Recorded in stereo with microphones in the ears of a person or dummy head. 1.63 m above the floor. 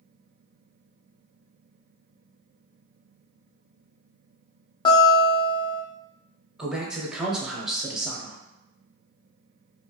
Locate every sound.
4.8 s a guitar: 25° left (ahead or behind), 0.6 m
6.6 s a man speaking: centre (ahead or behind), 0.6 m